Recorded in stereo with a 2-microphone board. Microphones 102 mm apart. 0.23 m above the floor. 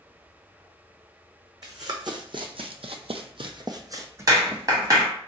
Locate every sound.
1.6 s running footsteps: 40° right (ahead or behind), 0.9 m; by 5.1 s 15° right (ahead or behind), 1.1 m
4.3 s a clap: 35° right (ahead or behind), 1.5 m